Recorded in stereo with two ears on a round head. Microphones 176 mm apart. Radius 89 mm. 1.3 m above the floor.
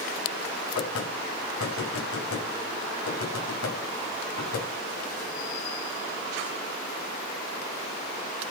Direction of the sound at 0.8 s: 75° left (ahead or behind).